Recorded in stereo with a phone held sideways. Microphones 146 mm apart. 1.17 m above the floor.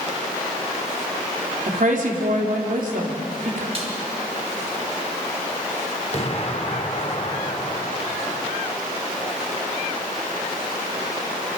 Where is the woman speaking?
65° right (ahead or behind), 3.5 m.